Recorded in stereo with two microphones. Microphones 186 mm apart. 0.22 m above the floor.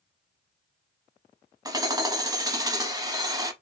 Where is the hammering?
20° right (ahead or behind), 0.6 m.